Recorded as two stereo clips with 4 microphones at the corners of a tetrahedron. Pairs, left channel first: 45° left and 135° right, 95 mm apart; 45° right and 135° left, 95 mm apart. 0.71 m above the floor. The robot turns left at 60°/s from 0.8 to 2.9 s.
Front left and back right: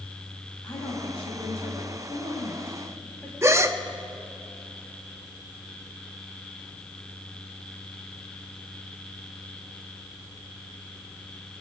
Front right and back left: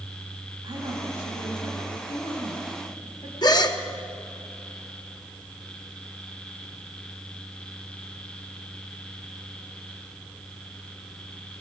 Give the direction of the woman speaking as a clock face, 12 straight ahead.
9 o'clock.